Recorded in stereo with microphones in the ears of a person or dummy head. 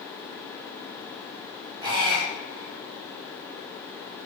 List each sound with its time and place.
1.8 s a squeak: 25° right (ahead or behind), 1.0 m